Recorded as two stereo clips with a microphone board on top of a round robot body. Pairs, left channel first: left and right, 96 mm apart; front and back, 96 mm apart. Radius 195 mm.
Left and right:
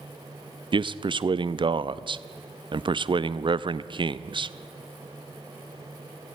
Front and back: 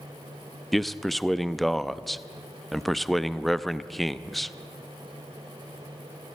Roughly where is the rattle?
I don't hear a rattle.